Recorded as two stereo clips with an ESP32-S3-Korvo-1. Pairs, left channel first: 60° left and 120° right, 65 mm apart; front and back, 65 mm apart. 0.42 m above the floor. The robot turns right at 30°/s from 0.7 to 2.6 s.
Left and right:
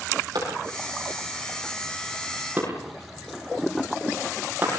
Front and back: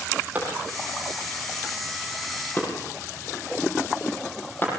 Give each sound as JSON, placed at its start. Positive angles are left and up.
{"t": 0.3, "sound": "a clap", "azimuth_deg": -115, "distance_m": 10.0}